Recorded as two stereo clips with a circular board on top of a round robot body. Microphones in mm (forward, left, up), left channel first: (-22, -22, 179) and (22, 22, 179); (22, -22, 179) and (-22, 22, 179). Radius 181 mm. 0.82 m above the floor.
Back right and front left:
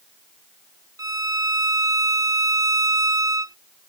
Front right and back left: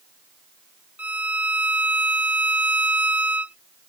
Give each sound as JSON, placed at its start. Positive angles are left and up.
{"t": 1.0, "sound": "a violin", "azimuth_deg": 70}